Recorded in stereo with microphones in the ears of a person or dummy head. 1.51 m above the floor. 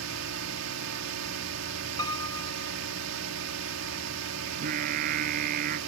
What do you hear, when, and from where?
0.0 s a drone: 85° right
2.0 s a piano: 25° left (ahead or behind)
4.5 s singing: 50° right (ahead or behind)